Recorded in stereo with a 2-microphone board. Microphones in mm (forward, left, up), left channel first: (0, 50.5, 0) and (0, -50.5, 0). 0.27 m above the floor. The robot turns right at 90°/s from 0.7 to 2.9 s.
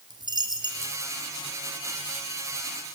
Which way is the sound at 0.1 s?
45° right (ahead or behind).